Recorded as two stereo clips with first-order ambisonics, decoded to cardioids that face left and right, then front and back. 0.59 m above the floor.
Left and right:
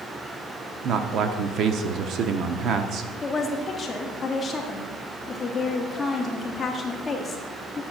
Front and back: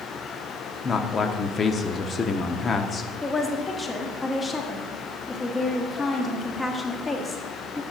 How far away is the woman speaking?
About 1.0 m.